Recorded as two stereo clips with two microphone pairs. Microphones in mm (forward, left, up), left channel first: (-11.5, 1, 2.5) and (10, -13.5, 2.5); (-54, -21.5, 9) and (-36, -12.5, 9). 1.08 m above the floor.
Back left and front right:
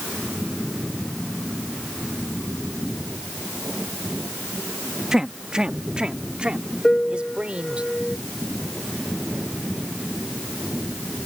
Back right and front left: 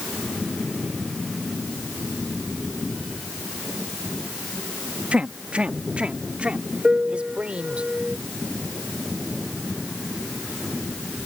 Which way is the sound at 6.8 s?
90° left.